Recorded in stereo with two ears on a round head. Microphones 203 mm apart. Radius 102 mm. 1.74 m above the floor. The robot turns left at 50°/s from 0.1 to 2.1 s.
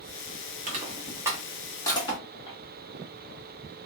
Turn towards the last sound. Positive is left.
turn(degrees=25)  # may be behind; listen again after turning